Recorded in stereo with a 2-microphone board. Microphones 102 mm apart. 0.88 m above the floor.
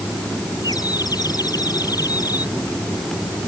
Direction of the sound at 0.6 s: 40° left (ahead or behind).